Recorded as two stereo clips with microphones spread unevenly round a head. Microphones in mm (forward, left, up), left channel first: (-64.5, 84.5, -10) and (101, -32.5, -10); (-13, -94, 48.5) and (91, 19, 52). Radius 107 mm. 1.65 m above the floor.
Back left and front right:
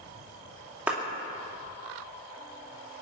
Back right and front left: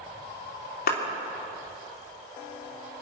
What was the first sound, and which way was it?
A clap, 120° right.